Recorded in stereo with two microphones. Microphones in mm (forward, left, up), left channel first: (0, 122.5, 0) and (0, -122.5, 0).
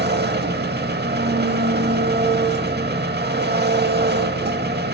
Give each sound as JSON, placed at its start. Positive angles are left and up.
{"t": 0.0, "sound": "an engine running", "side_deg": -40, "distance_m": 0.7}